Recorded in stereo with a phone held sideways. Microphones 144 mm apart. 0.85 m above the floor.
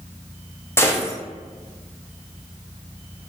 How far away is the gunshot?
About 0.7 m.